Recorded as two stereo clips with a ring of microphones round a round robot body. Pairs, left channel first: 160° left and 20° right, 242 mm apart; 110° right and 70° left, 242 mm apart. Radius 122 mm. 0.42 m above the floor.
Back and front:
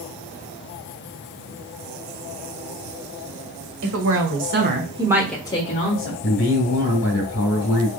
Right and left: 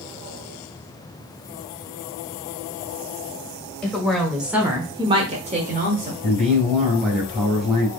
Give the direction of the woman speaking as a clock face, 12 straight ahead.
1 o'clock.